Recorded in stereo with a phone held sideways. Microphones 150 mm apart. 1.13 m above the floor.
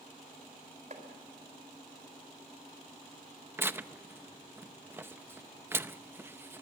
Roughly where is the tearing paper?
Centre.